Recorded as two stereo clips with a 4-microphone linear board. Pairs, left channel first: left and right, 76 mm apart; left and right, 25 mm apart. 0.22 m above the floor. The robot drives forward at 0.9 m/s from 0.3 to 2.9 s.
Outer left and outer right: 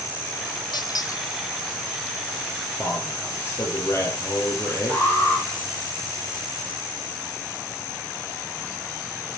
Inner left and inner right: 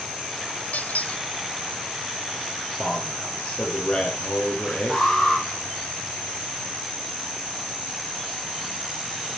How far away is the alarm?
About 6 m.